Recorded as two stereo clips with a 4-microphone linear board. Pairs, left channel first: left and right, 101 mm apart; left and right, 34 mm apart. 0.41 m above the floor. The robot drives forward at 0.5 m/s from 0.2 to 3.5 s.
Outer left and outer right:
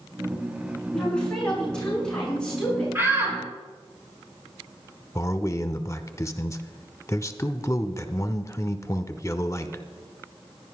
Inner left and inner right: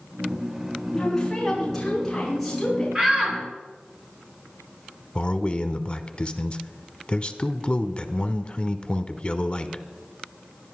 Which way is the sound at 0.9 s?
10° left (ahead or behind).